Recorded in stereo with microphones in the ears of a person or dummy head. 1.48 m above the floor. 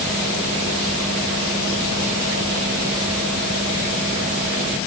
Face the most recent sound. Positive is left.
No sound to turn to.